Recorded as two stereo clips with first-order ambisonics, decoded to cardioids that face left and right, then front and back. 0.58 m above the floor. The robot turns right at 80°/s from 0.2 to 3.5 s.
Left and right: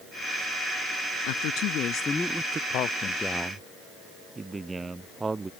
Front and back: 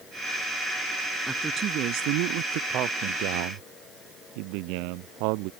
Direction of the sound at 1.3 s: 95° left.